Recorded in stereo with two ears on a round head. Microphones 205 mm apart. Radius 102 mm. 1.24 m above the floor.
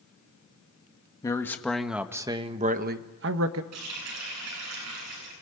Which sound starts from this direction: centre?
A man speaking, at 1.2 s.